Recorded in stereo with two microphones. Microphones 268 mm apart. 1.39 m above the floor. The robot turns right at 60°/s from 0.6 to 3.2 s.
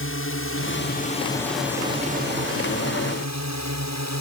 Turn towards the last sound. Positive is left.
turn(degrees=-75)  # may be behind; listen again after turning